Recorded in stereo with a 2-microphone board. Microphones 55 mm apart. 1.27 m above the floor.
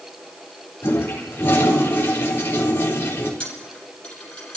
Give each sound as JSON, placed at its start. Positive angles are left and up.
{"t": 0.8, "sound": "a toilet flushing", "side_deg": 45, "distance_m": 4.0}
{"t": 3.4, "sound": "a dropped coin", "side_deg": 20, "distance_m": 4.5}